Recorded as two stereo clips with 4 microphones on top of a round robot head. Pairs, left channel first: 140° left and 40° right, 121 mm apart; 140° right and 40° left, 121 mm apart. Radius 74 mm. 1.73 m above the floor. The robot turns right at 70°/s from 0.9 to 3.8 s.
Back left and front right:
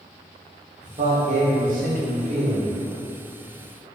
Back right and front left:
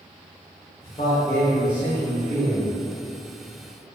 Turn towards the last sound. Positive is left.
turn(degrees=105)